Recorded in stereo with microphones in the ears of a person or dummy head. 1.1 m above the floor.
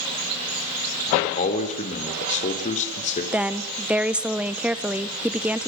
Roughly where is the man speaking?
Left.